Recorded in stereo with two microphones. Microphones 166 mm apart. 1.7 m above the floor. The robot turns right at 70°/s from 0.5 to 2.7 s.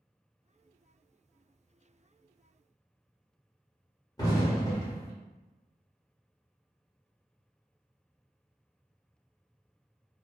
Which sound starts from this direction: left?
An explosion, at 4.2 s.